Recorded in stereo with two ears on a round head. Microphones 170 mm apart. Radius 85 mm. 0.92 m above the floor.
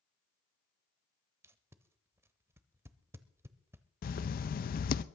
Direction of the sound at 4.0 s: 50° left (ahead or behind).